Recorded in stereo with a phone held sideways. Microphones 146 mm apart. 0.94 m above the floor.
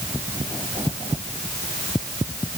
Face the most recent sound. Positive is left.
No sound to turn to.